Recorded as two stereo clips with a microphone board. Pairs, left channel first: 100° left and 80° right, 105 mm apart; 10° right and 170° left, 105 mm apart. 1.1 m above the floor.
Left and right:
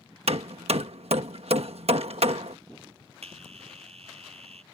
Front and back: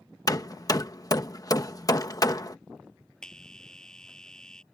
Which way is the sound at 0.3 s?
65° right.